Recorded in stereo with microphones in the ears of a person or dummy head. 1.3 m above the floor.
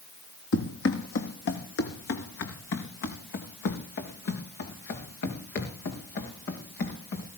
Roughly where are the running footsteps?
Left.